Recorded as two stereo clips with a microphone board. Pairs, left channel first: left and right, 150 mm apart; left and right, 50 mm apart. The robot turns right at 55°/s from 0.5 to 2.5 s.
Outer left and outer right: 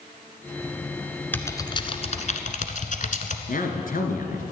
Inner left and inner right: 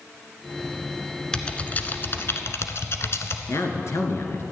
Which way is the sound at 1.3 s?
10° left (ahead or behind).